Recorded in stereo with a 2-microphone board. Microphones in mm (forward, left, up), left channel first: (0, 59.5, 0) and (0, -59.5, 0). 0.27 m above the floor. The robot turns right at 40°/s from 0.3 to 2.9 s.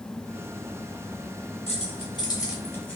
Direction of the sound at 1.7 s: 60° left (ahead or behind).